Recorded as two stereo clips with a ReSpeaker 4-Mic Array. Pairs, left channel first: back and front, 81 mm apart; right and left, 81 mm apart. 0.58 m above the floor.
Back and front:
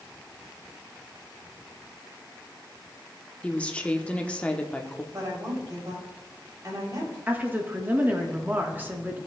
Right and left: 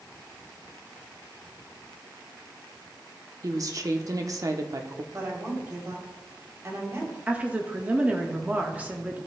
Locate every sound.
3.4 s a woman speaking: 110° left, 0.8 m
5.1 s a woman speaking: 40° left, 3 m
7.3 s a woman speaking: 35° left, 1.0 m